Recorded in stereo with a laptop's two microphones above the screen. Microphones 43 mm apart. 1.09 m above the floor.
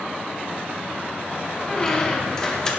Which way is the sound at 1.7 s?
15° left (ahead or behind).